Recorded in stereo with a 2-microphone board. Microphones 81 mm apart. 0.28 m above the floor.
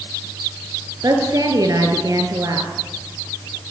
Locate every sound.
1.0 s a woman speaking: 50° right (ahead or behind), 4 m